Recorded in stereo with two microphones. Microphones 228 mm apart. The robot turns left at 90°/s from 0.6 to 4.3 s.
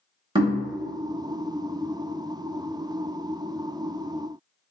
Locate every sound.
0.3 s knocking: 20° right (ahead or behind), 0.9 m